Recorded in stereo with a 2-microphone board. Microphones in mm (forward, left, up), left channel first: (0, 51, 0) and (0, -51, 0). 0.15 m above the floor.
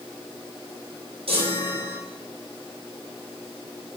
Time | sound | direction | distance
1.3 | a chime | 65° right (ahead or behind) | 3 m